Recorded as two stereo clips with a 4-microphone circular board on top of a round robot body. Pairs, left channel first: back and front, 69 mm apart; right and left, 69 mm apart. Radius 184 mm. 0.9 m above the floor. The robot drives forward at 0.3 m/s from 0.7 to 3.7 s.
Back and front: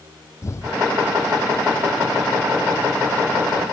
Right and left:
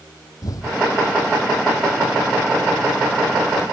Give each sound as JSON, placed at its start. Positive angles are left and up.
{"t": 0.4, "sound": "an explosion", "azimuth_deg": -130}